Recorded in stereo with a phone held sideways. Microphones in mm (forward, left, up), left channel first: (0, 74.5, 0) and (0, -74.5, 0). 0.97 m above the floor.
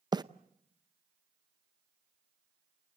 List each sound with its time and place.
0.1 s a bird: 25° right (ahead or behind), 0.6 m